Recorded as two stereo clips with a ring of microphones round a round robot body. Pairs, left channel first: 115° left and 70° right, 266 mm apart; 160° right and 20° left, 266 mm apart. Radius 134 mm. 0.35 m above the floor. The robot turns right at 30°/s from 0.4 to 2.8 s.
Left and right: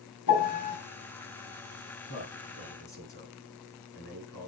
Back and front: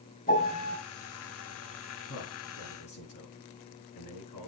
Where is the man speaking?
170° left, 5 m; by 4.5 s 170° right, 5 m.